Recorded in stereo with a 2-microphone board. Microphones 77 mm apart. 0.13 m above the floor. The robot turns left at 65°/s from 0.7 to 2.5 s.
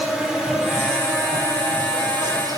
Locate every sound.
0.0 s an insect: 10° right, 4.5 m; by 2.6 s 125° right, 4.5 m